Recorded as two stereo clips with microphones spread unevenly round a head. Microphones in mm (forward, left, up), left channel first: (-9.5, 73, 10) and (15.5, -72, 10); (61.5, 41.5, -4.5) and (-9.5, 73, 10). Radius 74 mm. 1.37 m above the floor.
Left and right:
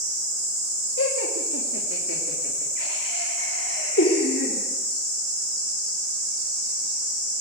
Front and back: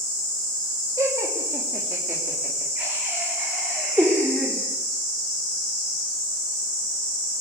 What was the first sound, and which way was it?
Laughter, 105° left.